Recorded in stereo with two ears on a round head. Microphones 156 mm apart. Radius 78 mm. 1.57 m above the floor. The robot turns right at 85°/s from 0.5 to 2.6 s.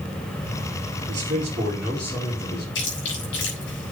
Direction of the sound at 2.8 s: 75° left (ahead or behind).